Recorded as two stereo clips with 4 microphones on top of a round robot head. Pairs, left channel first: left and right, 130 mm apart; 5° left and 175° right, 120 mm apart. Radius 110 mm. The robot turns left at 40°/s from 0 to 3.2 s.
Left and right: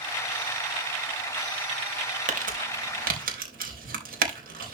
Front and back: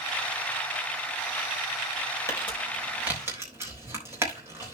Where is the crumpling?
65° right, 3.5 m; by 4.8 s 100° right, 3.5 m.